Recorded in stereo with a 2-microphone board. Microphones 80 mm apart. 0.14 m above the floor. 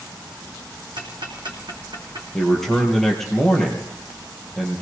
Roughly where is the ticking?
Right.